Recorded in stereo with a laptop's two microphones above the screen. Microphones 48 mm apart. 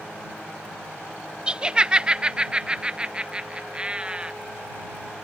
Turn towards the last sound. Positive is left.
turn(degrees=-20)  # may be behind; listen again after turning